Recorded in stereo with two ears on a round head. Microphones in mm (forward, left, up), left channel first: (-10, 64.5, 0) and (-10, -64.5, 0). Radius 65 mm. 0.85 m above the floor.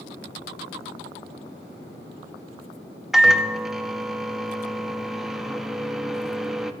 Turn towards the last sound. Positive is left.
turn(degrees=0)  # may be behind; listen again after turning